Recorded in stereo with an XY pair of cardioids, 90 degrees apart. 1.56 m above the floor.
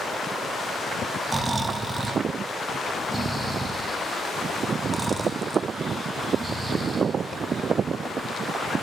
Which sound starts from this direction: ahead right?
Snoring, at 1.3 s.